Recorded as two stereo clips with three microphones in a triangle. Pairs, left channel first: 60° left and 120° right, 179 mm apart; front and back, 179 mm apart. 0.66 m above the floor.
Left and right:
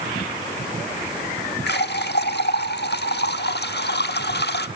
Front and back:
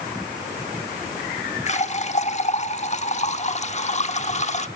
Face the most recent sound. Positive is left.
turn(degrees=50)